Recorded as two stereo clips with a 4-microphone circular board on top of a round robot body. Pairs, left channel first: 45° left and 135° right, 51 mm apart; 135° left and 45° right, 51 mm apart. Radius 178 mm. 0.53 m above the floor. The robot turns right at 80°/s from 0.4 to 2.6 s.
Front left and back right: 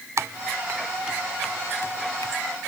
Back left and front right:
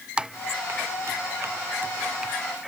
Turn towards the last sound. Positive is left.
turn(degrees=60)